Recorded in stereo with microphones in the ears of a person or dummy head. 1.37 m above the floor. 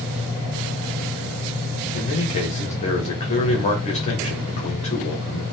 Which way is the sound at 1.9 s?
30° left (ahead or behind).